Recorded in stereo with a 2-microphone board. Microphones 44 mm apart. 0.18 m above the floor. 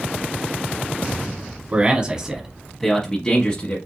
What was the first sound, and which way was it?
A man speaking, 30° right (ahead or behind).